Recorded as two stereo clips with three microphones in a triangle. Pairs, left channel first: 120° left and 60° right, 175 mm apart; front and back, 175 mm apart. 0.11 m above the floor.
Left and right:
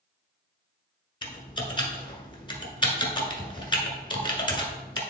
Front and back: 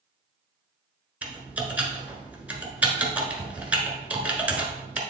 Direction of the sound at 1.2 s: 105° left.